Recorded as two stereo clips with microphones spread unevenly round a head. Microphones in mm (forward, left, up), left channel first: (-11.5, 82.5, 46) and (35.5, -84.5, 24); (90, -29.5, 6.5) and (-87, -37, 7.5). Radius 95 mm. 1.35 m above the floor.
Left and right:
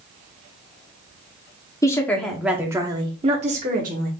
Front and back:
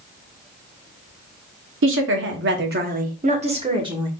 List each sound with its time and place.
1.8 s a woman speaking: straight behind, 1.0 m; by 4.1 s 110° right, 1.4 m